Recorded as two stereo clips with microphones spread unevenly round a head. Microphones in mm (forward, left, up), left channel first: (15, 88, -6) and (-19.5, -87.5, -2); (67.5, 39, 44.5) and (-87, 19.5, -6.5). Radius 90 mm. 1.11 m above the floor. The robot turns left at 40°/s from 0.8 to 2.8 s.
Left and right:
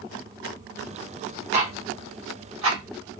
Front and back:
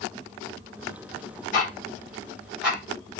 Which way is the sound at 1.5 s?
45° right.